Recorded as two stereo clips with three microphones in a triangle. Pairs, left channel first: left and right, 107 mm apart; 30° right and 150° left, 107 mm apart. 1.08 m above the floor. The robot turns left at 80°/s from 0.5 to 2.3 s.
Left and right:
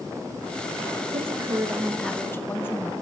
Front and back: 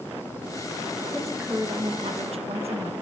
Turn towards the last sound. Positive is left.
turn(degrees=160)